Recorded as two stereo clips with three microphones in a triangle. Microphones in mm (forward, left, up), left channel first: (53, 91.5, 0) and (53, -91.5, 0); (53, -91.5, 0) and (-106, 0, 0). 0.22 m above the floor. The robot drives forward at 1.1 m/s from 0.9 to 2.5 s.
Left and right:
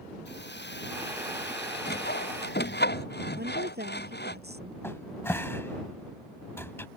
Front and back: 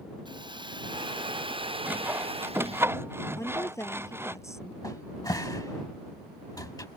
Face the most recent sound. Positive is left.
turn(degrees=25)